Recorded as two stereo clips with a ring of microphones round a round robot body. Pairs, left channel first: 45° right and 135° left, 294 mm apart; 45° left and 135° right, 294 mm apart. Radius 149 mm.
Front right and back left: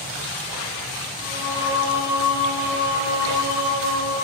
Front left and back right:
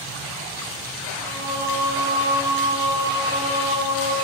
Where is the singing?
60° right, 8 m.